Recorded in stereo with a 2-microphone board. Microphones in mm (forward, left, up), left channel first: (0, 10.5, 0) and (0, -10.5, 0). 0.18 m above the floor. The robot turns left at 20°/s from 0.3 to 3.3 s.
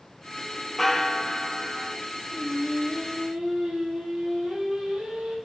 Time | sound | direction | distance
0.8 | a bell | 10° left (ahead or behind) | 0.9 m
2.3 | singing | 65° right (ahead or behind) | 5.5 m